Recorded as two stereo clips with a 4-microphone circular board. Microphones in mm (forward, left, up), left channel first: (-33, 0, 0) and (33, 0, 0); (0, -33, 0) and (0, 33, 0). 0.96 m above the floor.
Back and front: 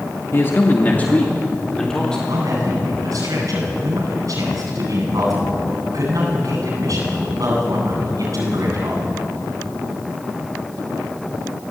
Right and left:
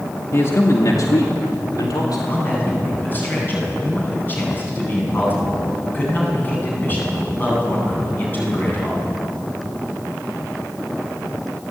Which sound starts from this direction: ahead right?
A man speaking, at 2.3 s.